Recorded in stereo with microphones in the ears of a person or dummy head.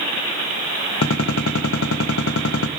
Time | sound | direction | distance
1.0 | a gunshot | 80° left | 1.4 m